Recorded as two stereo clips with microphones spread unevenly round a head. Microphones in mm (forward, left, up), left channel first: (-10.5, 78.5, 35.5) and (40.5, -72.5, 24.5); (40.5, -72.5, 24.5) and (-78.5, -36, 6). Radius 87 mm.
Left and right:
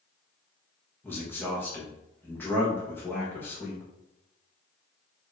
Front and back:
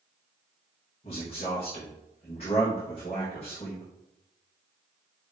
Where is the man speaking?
30° left, 1.4 m.